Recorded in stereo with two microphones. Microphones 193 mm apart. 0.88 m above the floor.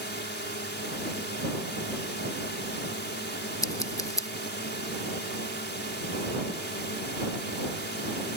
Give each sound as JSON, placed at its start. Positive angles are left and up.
{"t": 0.0, "sound": "a drone", "side_deg": 60}
{"t": 3.6, "sound": "scissors", "side_deg": 15}